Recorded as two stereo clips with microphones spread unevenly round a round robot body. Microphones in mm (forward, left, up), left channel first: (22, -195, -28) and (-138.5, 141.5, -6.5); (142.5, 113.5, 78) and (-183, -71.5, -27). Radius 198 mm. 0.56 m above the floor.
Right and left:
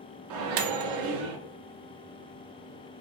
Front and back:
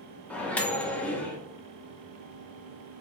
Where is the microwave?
130° left, 0.5 m.